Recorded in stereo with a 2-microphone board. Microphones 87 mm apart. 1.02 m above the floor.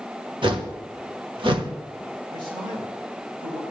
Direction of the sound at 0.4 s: 65° right (ahead or behind).